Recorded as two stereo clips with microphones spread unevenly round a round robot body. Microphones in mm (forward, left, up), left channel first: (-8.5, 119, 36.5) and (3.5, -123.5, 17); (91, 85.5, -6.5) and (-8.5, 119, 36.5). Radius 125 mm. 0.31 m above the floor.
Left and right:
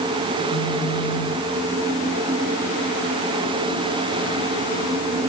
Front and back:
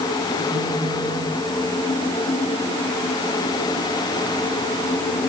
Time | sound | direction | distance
0.5 | a phone buzzing | 125° left | 4.5 m